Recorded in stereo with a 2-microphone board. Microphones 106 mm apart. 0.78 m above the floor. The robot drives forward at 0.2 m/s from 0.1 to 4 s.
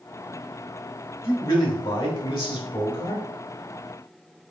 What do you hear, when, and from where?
1.2 s a man speaking: 50° left (ahead or behind), 3.5 m; by 3.2 s 55° left (ahead or behind), 3.5 m